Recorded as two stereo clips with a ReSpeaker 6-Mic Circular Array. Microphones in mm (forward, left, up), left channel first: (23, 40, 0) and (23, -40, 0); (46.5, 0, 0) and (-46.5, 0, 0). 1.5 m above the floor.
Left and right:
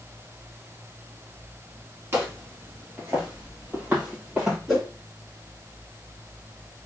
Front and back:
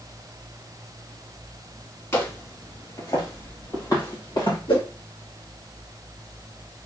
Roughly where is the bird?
I don't hear a bird.